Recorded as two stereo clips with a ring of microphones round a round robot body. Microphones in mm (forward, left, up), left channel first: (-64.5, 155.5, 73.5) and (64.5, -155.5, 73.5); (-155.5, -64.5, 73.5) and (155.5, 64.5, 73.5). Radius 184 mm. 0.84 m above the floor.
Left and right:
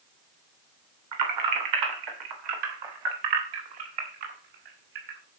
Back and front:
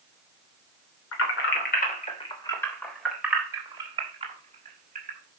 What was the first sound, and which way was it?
Keys jangling, 105° right.